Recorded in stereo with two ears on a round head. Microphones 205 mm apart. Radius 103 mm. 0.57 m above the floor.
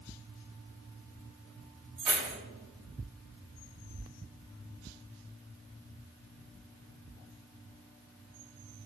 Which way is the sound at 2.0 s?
80° right.